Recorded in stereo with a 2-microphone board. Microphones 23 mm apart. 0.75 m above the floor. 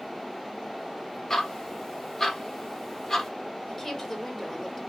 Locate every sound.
1.3 s ticking: 15° left (ahead or behind), 1.0 m
3.7 s a woman speaking: 10° left (ahead or behind), 1.2 m